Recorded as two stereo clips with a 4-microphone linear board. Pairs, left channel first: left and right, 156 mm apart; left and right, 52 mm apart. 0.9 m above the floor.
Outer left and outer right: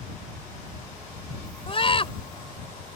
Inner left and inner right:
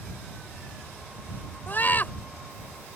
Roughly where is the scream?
Left.